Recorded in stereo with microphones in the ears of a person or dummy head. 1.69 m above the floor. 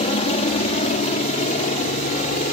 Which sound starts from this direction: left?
A helicopter, at 0.0 s.